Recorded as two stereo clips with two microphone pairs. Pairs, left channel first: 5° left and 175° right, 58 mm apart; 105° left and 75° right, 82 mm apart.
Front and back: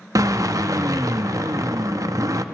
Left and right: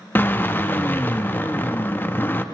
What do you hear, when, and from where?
0.1 s a drill: 170° left, 0.8 m